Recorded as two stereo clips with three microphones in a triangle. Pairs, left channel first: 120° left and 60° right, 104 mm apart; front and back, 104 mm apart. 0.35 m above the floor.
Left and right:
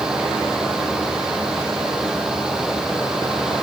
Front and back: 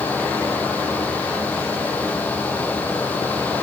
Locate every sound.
Only background noise.